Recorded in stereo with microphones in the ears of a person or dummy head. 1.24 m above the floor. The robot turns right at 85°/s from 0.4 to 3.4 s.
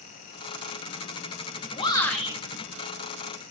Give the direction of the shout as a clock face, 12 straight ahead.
7 o'clock.